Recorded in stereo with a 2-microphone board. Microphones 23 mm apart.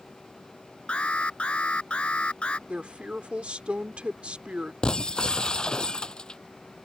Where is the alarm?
55° left (ahead or behind).